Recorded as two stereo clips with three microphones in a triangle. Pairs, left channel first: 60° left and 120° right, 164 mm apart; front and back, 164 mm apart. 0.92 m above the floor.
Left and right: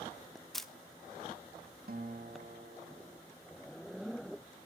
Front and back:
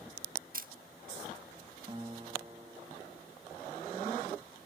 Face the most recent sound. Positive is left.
turn(degrees=-125)